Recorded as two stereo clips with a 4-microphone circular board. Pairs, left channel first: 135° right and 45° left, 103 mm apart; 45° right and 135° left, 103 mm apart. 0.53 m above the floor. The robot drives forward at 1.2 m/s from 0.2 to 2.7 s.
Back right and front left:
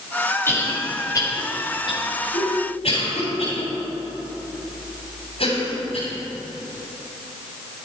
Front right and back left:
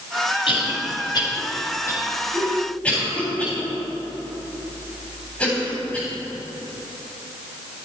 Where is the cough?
65° right, 3 m; by 6.1 s 125° right, 3 m.